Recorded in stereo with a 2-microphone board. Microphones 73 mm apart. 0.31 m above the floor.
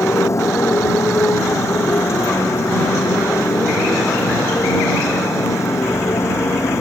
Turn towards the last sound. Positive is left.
turn(degrees=40)  # may be behind; listen again after turning